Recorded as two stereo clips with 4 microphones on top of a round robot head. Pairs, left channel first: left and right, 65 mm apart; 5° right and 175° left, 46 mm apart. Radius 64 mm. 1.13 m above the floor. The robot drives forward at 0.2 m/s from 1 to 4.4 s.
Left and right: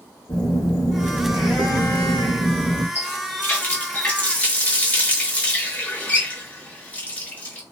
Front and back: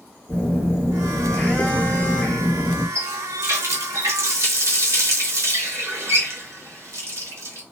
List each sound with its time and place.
0.3 s a phone buzzing: 45° left, 1.2 m; by 2.9 s 65° left, 1.0 m
3.0 s a running tap: 150° left, 0.8 m; by 7.6 s 160° left, 1.0 m